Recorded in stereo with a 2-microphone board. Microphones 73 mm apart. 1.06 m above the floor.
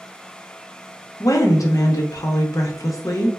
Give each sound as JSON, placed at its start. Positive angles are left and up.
{"t": 1.2, "sound": "a woman speaking", "side_deg": 55, "distance_m": 0.5}